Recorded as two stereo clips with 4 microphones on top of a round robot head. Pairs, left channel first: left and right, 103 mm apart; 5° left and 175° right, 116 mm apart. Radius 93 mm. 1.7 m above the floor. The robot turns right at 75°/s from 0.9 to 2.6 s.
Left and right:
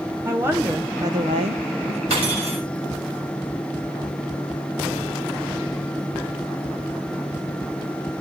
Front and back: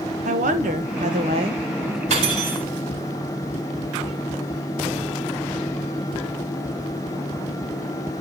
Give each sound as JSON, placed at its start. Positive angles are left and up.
{"t": 0.2, "sound": "a woman speaking", "azimuth_deg": -165, "distance_m": 1.7}
{"t": 2.1, "sound": "cutlery clinking", "azimuth_deg": -135, "distance_m": 6.5}